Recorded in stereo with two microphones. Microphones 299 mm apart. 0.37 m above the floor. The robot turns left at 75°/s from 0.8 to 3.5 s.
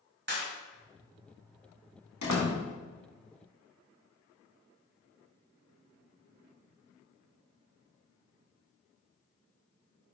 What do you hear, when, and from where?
0.3 s a clap: 35° right (ahead or behind), 1.5 m
2.2 s a door slam: 65° left (ahead or behind), 1.9 m; by 2.5 s 45° left (ahead or behind), 1.9 m